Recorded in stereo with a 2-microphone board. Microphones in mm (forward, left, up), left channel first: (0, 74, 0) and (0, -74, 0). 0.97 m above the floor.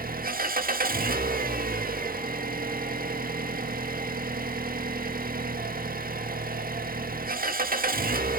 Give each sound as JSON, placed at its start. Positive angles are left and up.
{"t": 0.0, "sound": "an engine running", "side_deg": -65, "distance_m": 1.5}